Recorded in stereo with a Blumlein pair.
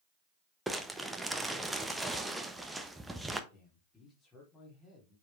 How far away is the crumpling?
About 1.1 m.